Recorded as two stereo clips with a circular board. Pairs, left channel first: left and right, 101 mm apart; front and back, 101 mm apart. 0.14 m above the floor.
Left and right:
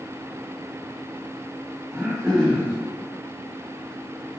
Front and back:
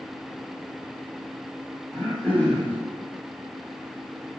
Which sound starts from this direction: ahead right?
Throat clearing, at 1.9 s.